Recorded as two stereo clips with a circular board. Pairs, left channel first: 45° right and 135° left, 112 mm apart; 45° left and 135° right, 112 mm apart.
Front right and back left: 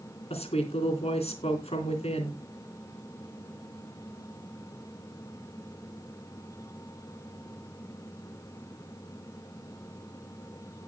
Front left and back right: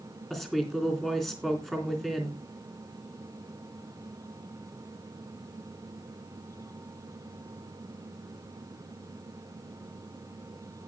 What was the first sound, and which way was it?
A woman speaking, 40° right.